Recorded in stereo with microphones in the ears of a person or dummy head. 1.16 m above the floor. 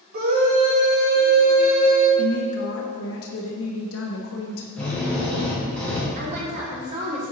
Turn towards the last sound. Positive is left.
turn(degrees=-45)  # may be behind; listen again after turning